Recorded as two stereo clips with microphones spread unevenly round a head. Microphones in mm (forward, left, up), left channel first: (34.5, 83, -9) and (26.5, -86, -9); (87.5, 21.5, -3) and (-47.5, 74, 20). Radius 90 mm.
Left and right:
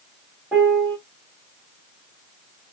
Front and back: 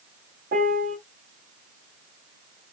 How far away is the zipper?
No zipper in this recording.